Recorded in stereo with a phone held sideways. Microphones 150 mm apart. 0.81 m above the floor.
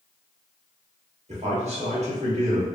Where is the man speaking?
45° right (ahead or behind), 1.2 m.